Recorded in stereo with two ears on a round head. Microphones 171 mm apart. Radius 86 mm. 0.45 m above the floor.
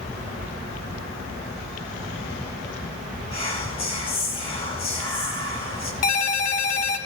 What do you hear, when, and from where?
3.3 s whispering: 30° left (ahead or behind), 2.5 m
6.0 s a ringtone: 45° left (ahead or behind), 1.5 m